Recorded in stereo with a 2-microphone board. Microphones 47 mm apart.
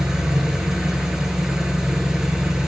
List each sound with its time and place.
0.0 s an engine running: 15° right (ahead or behind), 1.0 m